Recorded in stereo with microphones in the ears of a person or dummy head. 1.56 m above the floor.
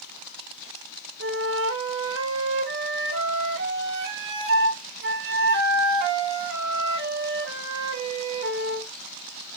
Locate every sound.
1.2 s a flute: 65° right (ahead or behind), 1.9 m